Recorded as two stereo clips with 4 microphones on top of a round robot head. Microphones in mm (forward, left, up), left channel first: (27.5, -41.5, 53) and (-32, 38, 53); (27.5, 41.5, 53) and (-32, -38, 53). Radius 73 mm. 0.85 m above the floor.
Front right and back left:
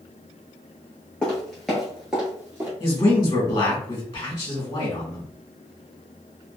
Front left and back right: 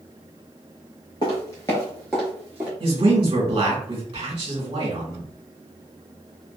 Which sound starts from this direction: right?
A man speaking, at 2.8 s.